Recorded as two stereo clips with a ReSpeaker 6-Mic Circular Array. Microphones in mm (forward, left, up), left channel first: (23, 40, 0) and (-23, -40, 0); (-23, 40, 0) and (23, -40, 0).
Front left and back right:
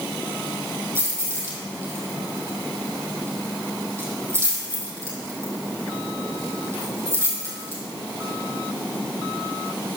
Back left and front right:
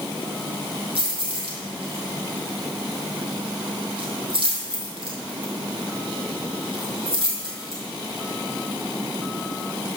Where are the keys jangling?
60° right, 3 m.